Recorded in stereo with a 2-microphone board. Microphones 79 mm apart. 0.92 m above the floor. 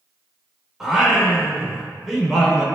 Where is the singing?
5° right (ahead or behind), 2 m.